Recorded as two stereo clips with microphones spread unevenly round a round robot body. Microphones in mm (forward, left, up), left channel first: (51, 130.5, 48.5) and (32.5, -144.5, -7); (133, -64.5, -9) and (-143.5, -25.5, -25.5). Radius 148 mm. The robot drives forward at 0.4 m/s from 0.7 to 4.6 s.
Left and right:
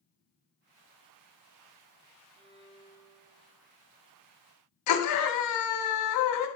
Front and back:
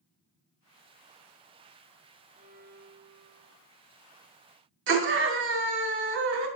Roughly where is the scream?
Behind left.